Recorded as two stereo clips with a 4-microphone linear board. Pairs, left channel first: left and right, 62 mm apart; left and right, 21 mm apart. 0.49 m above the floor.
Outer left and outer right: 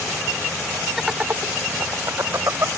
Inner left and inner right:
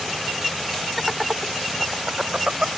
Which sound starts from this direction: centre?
Laughter, at 1.0 s.